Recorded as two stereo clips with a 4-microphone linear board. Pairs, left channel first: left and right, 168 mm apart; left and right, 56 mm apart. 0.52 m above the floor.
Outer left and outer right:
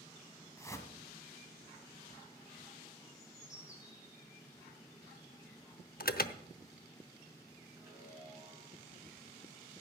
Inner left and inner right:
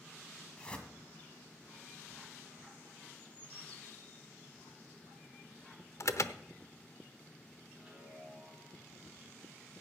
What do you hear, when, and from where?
0.6 s a whoosh: 20° left (ahead or behind), 1.8 m
3.1 s a bird: 20° left (ahead or behind), 8.5 m
6.0 s an alarm: 65° left (ahead or behind), 0.7 m
7.8 s a chime: 15° right (ahead or behind), 9 m